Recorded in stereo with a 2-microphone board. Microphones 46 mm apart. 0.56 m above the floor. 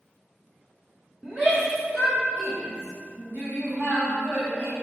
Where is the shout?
30° right (ahead or behind), 2.5 m; by 4.7 s 45° right (ahead or behind), 4.5 m.